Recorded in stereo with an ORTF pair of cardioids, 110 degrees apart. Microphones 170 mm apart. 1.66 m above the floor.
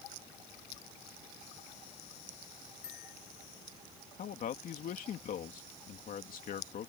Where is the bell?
60° left.